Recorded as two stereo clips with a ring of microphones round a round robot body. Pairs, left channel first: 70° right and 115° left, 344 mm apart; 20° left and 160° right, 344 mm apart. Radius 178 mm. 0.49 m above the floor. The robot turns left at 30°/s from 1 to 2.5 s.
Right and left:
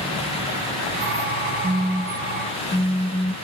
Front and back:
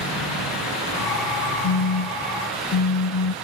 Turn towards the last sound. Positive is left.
turn(degrees=10)